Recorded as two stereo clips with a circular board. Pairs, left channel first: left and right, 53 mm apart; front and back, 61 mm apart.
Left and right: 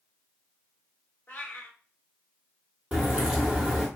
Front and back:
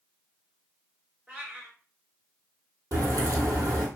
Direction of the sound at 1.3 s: 110° left.